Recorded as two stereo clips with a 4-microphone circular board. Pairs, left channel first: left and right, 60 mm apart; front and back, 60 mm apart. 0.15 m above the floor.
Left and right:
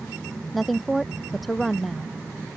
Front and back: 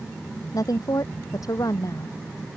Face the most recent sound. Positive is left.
turn(degrees=0)